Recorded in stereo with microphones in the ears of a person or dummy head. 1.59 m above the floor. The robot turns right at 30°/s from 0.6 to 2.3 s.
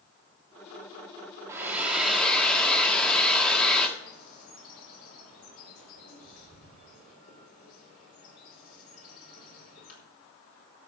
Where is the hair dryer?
10° right (ahead or behind), 1.6 m; by 3.9 s 10° left (ahead or behind), 1.6 m.